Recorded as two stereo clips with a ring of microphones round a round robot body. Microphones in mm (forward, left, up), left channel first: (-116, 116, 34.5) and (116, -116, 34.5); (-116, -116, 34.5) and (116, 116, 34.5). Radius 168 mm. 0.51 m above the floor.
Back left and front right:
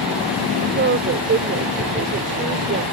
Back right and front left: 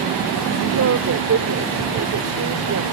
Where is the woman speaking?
5° left.